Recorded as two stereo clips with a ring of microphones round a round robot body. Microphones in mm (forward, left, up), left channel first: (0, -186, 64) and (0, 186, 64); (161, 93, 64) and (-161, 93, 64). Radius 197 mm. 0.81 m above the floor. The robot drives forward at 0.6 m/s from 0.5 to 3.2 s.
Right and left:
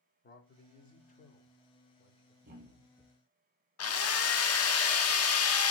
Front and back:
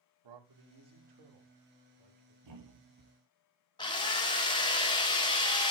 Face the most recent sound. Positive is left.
turn(degrees=-70)